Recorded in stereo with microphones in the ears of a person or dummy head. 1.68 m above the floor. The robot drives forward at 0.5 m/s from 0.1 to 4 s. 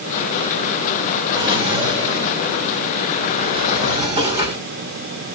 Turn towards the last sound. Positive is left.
turn(degrees=-15)  # may be behind; listen again after turning